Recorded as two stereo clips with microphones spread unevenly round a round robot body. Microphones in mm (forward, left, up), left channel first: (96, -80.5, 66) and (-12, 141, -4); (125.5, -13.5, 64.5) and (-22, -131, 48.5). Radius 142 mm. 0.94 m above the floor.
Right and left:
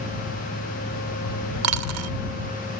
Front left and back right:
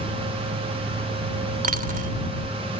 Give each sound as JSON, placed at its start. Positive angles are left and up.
{"t": 1.6, "sound": "a dropped coin", "azimuth_deg": 155}